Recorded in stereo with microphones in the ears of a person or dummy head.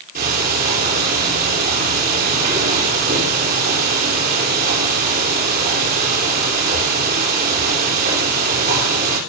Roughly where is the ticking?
Right.